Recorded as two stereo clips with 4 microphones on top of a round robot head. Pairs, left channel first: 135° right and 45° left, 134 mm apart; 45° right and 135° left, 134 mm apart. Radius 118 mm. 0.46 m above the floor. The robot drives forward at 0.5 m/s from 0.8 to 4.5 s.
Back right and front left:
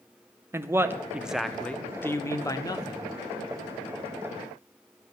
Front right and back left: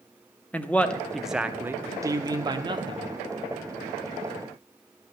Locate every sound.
0.5 s a man speaking: 15° left, 0.8 m; by 3.1 s 175° left, 1.2 m